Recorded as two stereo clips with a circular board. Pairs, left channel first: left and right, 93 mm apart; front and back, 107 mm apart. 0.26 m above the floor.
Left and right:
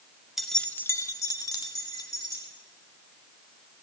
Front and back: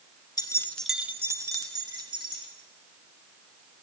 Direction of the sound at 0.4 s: Straight ahead.